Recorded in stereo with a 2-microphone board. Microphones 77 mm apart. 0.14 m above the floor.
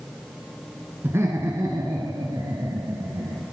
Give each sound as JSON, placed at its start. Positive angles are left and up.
{"t": 1.0, "sound": "laughter", "side_deg": -30, "distance_m": 1.6}